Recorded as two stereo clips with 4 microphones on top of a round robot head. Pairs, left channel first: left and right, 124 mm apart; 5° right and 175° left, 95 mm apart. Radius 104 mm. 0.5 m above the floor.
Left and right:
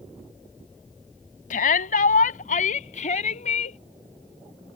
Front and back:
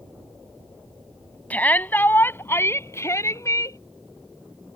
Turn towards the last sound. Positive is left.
turn(degrees=50)